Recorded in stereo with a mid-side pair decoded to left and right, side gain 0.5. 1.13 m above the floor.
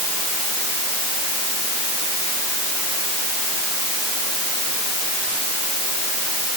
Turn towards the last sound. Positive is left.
No sound to turn to.